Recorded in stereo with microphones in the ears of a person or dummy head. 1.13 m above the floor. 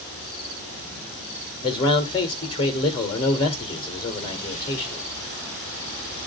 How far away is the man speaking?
About 1.5 m.